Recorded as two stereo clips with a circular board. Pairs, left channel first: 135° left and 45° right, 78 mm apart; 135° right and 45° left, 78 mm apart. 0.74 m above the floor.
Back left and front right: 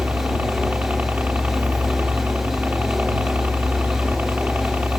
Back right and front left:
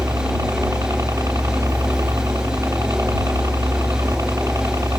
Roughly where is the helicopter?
Ahead.